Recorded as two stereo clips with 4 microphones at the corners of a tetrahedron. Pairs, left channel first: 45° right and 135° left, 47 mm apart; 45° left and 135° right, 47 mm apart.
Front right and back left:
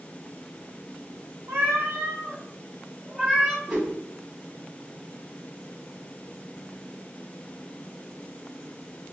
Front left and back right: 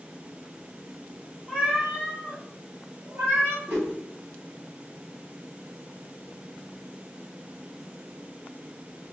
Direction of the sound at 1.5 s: 155° left.